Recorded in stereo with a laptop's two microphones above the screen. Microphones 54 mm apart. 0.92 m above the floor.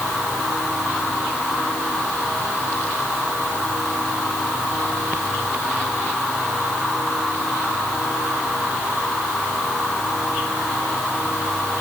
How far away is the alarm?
I don't hear an alarm.